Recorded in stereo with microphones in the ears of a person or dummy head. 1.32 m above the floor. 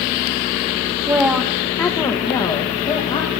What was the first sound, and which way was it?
A woman speaking, 15° right (ahead or behind).